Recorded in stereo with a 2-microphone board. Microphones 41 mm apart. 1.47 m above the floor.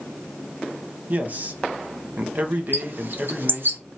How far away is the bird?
About 0.8 m.